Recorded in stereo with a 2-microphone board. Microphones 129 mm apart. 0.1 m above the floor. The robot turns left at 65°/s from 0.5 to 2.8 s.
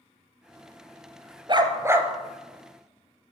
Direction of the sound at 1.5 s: 120° right.